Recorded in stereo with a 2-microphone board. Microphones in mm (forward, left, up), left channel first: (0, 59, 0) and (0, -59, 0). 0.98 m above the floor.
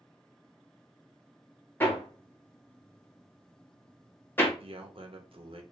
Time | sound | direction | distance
1.8 | hammering | 20° left (ahead or behind) | 1.1 m
4.6 | a man speaking | 55° right (ahead or behind) | 0.9 m